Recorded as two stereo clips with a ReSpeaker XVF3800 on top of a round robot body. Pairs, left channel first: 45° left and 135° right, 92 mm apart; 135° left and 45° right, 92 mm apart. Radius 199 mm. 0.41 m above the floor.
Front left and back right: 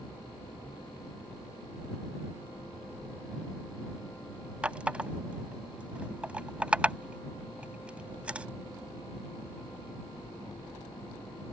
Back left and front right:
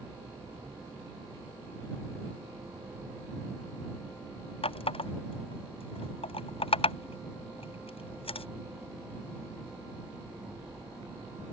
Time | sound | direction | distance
4.6 | a running tap | 150° left | ?